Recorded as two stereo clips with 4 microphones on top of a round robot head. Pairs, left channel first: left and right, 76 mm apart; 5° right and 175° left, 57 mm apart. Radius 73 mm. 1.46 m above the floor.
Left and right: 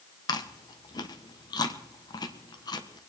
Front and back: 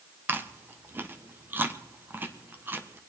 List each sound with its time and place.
0.3 s chewing: 120° left, 1.5 m